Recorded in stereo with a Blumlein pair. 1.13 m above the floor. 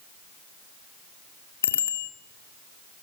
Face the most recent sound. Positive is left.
turn(degrees=65)